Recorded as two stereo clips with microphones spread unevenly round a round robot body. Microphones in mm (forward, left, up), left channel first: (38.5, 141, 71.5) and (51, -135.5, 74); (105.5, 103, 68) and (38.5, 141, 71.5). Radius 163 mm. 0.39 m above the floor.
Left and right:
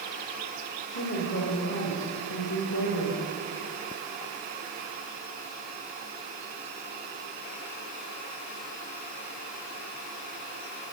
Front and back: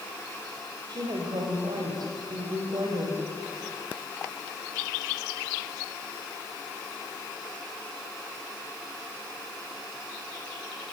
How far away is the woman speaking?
About 2 m.